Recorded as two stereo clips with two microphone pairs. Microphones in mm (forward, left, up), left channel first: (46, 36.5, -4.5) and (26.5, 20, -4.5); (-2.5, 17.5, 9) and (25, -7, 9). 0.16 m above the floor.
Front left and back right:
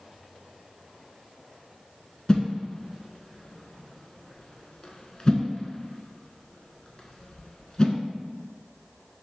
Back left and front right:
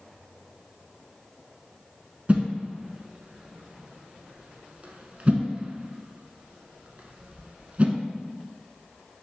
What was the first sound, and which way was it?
A whoosh, 5° right.